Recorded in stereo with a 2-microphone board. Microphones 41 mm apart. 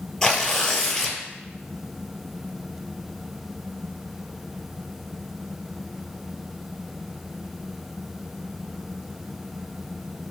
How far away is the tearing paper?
About 0.7 m.